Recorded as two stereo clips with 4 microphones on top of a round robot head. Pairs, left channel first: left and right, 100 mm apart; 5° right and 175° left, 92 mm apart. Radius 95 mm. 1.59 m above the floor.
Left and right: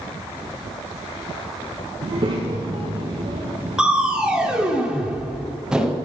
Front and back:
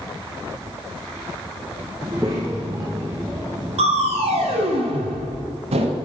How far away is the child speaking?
About 0.6 m.